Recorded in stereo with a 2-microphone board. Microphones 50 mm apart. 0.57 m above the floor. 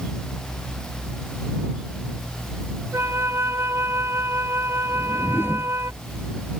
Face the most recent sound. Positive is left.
turn(degrees=55)  # may be behind; listen again after turning